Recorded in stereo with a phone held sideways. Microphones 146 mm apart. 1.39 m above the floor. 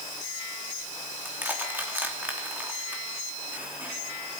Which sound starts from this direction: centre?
Crushing, at 1.2 s.